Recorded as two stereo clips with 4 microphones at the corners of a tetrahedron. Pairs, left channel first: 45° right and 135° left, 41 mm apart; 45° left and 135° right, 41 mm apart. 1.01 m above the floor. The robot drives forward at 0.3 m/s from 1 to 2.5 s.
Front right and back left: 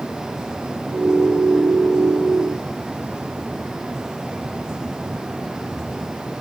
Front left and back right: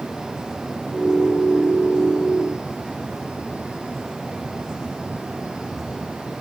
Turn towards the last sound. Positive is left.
No sound to turn to.